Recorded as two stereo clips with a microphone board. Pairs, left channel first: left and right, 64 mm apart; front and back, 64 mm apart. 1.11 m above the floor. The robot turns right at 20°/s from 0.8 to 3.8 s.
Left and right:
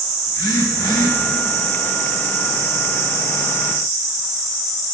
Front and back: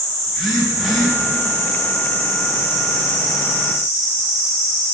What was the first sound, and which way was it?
A phone buzzing, 85° left.